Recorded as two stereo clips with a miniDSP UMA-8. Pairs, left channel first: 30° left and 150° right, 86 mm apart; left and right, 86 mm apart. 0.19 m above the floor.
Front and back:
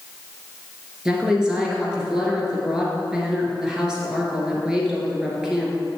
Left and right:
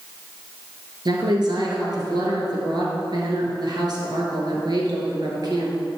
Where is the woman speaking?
70° right, 2.5 m.